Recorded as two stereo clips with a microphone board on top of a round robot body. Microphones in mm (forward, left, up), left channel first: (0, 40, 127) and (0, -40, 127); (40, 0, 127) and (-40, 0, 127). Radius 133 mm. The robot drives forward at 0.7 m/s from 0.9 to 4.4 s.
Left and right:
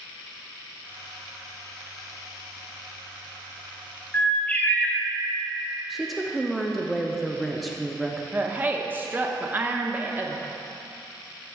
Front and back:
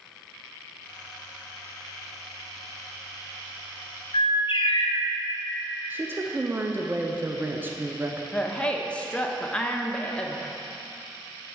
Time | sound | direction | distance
4.1 | a bird | 15° left | 1.1 m
5.9 | a woman speaking | straight behind | 0.8 m
8.3 | a woman speaking | 60° right | 0.8 m